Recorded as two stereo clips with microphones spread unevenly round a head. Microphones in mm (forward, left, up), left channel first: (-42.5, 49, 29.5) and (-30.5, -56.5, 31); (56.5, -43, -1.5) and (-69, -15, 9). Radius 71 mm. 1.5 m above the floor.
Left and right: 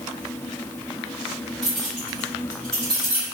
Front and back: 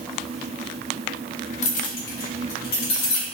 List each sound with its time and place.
1.6 s keys jangling: 10° left, 0.6 m